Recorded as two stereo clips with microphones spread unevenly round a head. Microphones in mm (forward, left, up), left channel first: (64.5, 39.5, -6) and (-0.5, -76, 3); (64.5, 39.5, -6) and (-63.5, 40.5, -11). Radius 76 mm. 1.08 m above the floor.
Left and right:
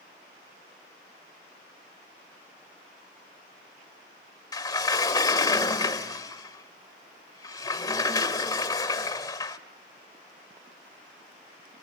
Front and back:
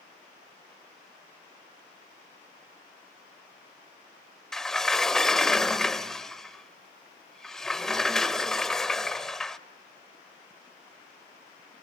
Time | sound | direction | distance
4.5 | a sliding door | 80° left | 0.8 m